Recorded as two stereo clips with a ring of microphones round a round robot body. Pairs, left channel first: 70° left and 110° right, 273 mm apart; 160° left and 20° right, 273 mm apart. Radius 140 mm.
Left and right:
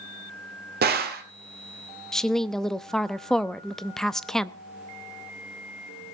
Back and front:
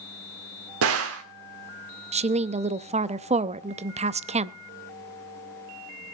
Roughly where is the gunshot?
Ahead right.